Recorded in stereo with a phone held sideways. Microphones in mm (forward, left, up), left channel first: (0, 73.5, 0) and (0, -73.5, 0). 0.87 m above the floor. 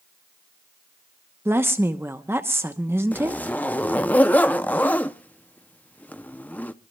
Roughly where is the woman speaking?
Centre.